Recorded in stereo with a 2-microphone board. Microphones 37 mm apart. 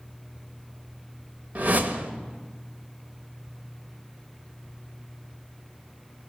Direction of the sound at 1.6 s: 50° right (ahead or behind).